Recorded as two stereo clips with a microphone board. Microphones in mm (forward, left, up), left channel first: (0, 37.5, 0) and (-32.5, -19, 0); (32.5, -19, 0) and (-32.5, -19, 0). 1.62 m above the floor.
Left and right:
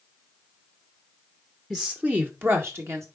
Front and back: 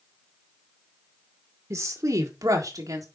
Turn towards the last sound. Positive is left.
turn(degrees=-160)